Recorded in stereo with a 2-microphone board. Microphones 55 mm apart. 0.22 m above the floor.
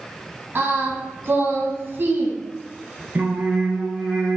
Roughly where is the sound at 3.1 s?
Right.